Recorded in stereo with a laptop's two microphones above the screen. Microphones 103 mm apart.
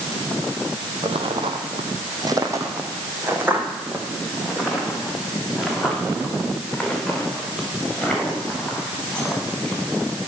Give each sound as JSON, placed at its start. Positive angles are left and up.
{"t": 1.0, "sound": "footsteps", "side_deg": -65, "distance_m": 2.0}